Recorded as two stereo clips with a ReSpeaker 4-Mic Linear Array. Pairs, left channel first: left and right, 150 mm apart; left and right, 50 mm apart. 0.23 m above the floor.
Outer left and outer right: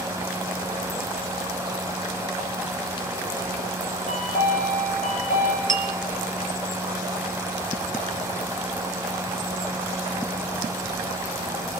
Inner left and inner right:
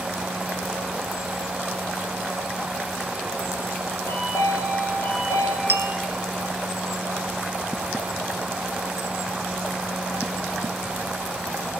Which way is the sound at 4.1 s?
65° left (ahead or behind).